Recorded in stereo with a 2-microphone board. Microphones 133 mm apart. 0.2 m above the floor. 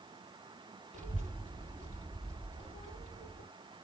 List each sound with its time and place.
0.9 s a child speaking: 65° right (ahead or behind), 2.5 m